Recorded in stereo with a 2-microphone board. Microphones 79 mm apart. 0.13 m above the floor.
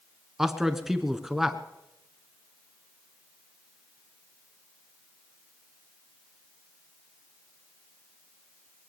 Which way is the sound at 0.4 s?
5° right (ahead or behind).